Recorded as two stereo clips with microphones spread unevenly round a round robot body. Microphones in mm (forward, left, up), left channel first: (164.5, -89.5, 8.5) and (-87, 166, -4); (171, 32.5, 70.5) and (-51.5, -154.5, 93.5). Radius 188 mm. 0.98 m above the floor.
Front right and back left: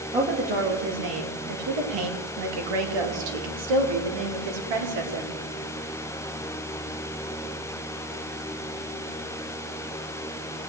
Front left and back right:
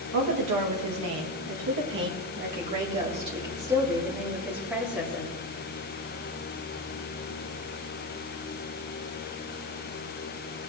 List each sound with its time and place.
0.1 s a woman speaking: 150° right, 1.4 m; by 5.3 s 125° left, 2.5 m